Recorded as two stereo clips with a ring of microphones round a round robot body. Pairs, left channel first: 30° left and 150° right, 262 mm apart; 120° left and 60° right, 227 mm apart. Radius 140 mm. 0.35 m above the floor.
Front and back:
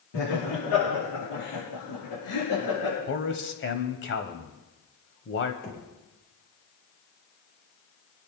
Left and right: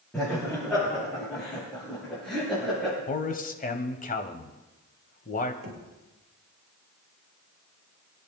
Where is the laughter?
35° left, 8.5 m; by 3.0 s 30° left, 7 m.